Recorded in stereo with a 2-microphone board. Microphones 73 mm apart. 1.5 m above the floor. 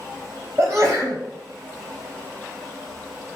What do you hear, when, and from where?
0.6 s a sneeze: 25° right (ahead or behind), 0.8 m